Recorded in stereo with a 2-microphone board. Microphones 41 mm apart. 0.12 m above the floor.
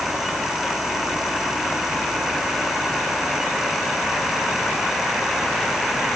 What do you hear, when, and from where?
Only background noise.